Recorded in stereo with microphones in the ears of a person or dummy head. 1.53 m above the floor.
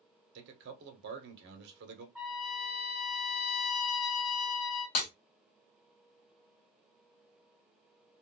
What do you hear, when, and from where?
0.3 s a man speaking: 65° right (ahead or behind), 1.2 m
2.1 s a trumpet: 5° left (ahead or behind), 1.2 m
5.0 s breaking glass: 35° left (ahead or behind), 1.2 m